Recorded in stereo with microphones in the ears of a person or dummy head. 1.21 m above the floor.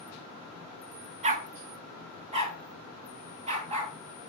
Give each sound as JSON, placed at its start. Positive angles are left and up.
{"t": 1.2, "sound": "a dog barking", "side_deg": -35, "distance_m": 1.4}